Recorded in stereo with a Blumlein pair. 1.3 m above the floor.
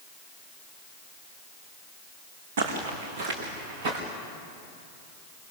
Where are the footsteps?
55° right, 4.5 m; by 4.0 s 45° right, 6 m.